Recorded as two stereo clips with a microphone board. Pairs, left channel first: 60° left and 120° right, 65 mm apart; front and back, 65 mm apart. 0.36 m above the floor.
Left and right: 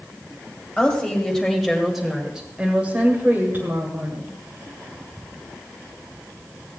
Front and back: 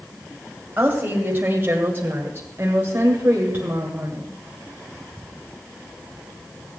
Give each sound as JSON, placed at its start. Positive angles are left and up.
{"t": 0.8, "sound": "a woman speaking", "azimuth_deg": 125, "distance_m": 2.0}